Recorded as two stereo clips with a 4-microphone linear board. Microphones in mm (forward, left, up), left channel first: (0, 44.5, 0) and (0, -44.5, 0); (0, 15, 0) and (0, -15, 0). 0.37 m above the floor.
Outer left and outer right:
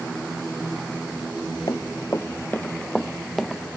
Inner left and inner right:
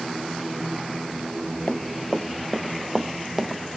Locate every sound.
1.7 s running footsteps: 45° left (ahead or behind); by 3.6 s 5° right (ahead or behind)